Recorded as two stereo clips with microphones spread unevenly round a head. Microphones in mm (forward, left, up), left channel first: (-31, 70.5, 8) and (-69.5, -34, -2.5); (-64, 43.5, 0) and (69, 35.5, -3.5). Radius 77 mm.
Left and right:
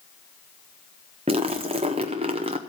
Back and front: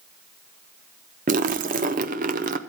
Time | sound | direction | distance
1.3 | a splash | 50° right | 0.5 m